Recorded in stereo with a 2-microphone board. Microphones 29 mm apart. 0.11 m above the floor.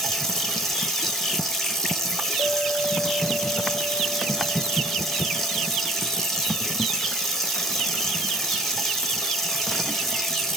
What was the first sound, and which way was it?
Running water, 10° left (ahead or behind).